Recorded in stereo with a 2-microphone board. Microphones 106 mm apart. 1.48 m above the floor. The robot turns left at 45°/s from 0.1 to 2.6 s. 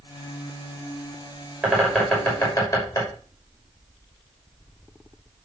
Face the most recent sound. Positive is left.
turn(degrees=30)  # may be behind; listen again after turning